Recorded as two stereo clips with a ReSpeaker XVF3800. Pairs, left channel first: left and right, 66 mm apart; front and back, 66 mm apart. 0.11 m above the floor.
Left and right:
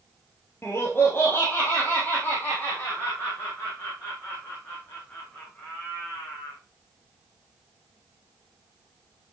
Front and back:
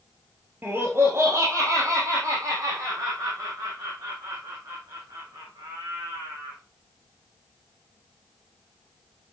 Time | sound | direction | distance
0.6 | laughter | 130° left | 2.0 m